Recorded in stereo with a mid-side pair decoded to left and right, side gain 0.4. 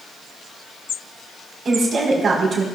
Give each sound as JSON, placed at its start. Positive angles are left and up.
{"t": 1.6, "sound": "a woman speaking", "azimuth_deg": -55, "distance_m": 4.5}